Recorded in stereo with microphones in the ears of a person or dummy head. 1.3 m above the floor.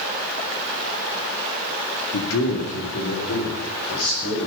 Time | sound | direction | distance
2.1 | a man speaking | 85° left | 2.5 m